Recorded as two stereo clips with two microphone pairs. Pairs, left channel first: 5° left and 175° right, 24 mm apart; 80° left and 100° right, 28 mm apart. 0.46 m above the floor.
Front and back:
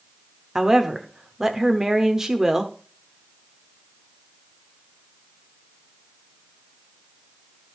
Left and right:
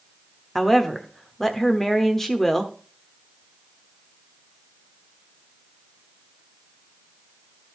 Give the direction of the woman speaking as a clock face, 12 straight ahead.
7 o'clock.